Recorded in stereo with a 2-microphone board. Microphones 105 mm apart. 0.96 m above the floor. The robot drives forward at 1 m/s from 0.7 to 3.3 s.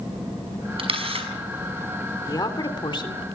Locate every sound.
0.8 s a camera shutter: 65° right (ahead or behind), 6 m; by 1.3 s 70° right (ahead or behind), 5.5 m
2.3 s a woman speaking: 40° left (ahead or behind), 3 m; by 3.2 s 55° left (ahead or behind), 2.5 m